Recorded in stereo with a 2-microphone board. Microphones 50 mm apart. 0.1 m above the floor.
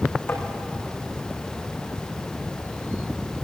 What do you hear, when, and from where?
0.3 s tapping: 50° left (ahead or behind), 5 m